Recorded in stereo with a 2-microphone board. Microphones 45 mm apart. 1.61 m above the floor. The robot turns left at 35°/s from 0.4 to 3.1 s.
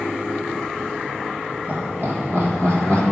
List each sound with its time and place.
1.7 s laughter: 40° right (ahead or behind), 1.5 m; by 3.0 s 70° right (ahead or behind), 1.5 m